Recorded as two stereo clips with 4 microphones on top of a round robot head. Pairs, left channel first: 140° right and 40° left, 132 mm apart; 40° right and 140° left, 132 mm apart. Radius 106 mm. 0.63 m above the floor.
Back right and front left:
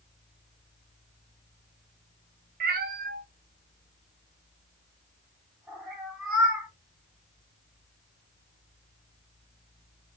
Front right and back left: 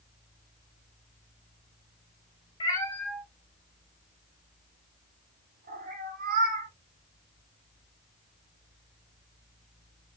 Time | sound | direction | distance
2.6 | a cat meowing | 15° left | 0.6 m